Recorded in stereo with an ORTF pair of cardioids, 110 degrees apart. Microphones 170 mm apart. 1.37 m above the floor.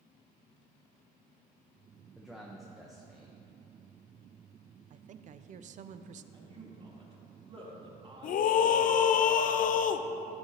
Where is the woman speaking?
50° right, 0.5 m.